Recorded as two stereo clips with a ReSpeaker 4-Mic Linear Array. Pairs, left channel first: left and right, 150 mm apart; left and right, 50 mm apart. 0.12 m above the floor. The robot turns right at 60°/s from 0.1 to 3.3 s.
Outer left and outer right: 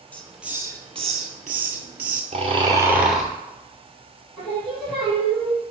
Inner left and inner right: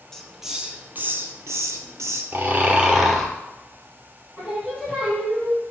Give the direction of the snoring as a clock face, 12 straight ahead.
2 o'clock.